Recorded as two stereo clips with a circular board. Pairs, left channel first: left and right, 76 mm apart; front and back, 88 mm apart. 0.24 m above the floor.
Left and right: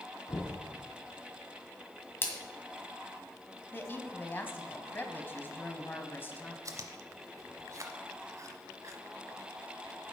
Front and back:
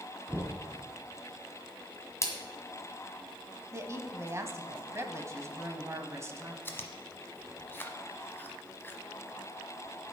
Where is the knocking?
120° left, 1.3 m.